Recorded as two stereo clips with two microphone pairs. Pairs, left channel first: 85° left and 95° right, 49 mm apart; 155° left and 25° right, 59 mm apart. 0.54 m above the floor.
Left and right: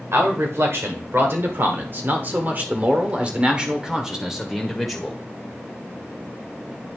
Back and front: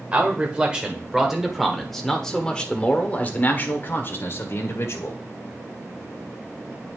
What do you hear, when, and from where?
0.1 s a man speaking: 95° right, 2 m; by 5.2 s 175° left, 2 m